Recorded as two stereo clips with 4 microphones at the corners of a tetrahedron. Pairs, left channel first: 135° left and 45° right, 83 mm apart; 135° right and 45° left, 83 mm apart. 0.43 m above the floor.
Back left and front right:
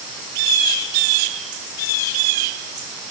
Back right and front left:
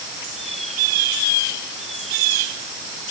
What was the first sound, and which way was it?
Only background noise.